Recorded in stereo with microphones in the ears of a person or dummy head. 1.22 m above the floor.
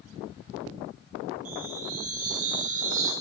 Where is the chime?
40° right (ahead or behind), 0.8 m.